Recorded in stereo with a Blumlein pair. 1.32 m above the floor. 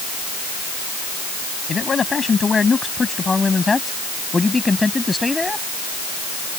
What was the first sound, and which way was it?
A man speaking, 15° left.